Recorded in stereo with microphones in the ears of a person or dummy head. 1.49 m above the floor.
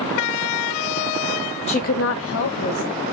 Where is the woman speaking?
30° left (ahead or behind), 0.7 m; by 3.0 s 45° left (ahead or behind), 1.5 m.